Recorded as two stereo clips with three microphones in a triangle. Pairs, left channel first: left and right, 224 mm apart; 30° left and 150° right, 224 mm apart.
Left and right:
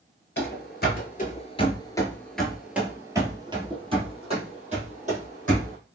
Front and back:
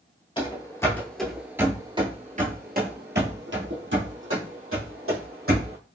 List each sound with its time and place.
0.4 s running footsteps: 90° left, 1.2 m; by 5.8 s 145° right, 2.5 m